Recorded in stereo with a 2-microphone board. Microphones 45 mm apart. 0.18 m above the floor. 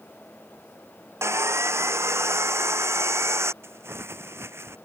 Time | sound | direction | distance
1.2 | sawing | 80° right | ?
3.6 | crumpling | 70° right (ahead or behind) | ?